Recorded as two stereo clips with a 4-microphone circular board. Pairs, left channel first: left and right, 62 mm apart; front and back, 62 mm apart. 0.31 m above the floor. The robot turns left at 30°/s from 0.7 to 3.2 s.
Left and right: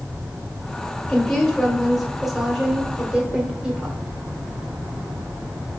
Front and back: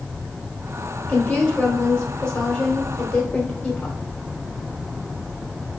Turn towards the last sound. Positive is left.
turn(degrees=-50)